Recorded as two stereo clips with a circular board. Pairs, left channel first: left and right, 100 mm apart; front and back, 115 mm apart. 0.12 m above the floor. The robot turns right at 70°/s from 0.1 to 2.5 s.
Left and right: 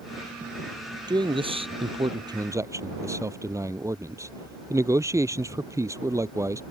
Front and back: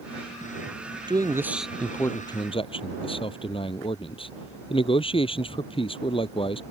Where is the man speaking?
130° right; by 6.6 s 35° right.